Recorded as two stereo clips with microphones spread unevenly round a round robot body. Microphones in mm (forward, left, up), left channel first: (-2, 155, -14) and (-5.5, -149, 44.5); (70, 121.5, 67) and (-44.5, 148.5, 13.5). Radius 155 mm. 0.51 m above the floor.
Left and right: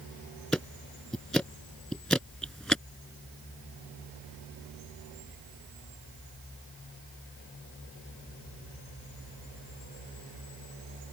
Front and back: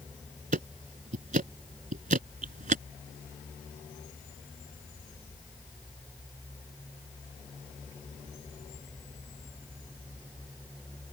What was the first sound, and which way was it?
Ticking, straight behind.